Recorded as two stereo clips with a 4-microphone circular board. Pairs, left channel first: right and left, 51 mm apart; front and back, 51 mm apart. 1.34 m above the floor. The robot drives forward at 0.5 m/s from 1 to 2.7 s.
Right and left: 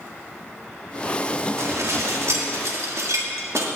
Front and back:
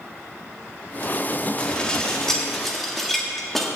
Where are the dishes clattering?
70° left, 1.9 m; by 3.7 s 85° left, 1.8 m.